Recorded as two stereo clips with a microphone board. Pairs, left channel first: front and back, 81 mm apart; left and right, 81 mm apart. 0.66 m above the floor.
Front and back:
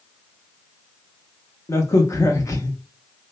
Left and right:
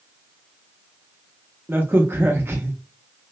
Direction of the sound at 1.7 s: 35° right.